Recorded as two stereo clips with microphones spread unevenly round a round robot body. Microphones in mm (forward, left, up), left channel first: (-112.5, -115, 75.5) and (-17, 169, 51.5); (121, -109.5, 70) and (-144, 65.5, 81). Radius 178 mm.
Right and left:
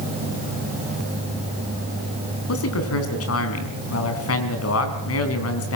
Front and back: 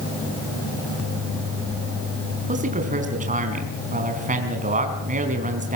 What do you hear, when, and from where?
2.5 s a man speaking: 145° right, 4.5 m